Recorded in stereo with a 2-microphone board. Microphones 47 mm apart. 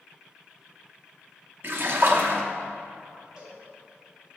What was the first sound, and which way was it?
A splash, 50° right (ahead or behind).